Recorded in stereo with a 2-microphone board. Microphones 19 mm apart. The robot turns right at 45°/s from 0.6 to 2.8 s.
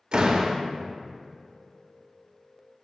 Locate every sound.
0.1 s a door slam: 45° right (ahead or behind), 1.1 m